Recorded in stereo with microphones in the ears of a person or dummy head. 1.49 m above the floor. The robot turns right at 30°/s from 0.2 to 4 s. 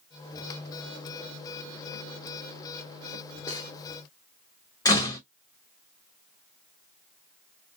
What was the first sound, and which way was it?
Cutlery clinking, 20° left (ahead or behind).